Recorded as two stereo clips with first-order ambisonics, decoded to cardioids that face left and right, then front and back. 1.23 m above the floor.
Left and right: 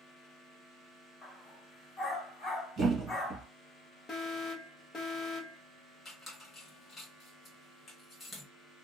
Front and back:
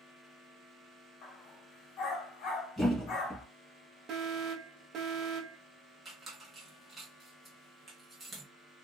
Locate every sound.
1.2 s a dog barking: 20° left, 1.1 m
2.8 s a thud: 70° right, 1.2 m
4.1 s an alarm: 145° left, 0.7 m
6.0 s a squeak: 115° left, 1.0 m